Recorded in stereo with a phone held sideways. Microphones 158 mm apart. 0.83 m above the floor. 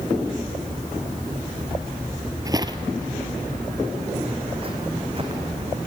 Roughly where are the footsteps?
Right.